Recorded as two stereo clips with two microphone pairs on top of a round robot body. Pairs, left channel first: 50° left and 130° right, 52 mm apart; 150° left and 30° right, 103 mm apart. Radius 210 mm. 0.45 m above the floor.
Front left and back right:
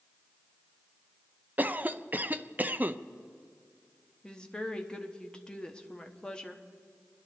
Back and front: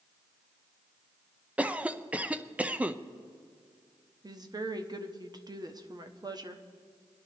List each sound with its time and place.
1.6 s a cough: 95° right, 0.8 m
4.2 s a woman speaking: 15° right, 1.4 m